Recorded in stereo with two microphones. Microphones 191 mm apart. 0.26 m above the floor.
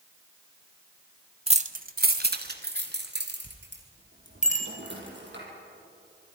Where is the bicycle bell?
40° left (ahead or behind), 3.5 m.